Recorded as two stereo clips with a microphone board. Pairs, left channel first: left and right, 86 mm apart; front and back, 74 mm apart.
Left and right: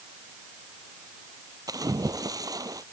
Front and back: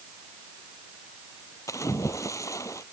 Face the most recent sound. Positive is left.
turn(degrees=-45)